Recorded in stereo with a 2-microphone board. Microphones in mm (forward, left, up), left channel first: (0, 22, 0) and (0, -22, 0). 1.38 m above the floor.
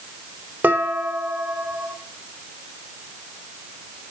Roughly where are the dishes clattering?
Right.